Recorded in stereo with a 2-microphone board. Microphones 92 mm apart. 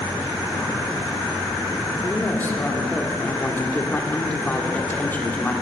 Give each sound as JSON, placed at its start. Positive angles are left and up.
{"t": 2.0, "sound": "a woman speaking", "side_deg": 20, "distance_m": 1.1}